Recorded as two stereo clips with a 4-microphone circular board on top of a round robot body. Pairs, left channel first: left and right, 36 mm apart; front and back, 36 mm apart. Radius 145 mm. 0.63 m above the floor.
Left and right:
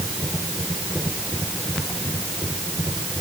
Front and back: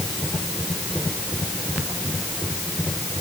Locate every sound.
Only background noise.